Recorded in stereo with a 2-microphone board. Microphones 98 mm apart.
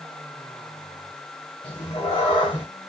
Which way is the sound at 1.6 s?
50° left (ahead or behind).